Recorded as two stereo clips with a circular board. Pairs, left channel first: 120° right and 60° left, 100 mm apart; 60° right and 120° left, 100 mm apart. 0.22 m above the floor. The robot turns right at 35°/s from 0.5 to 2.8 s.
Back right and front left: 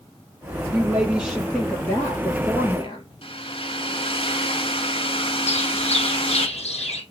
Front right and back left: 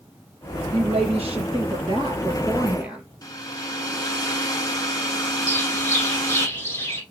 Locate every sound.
0.7 s a woman speaking: 130° left, 5 m; by 3.0 s 160° right, 5 m
3.2 s a hair dryer: 110° right, 1.4 m
5.5 s a bird: 125° right, 2 m